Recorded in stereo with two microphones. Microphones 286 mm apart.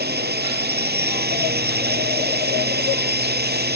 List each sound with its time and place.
0.0 s a drone: 35° right (ahead or behind)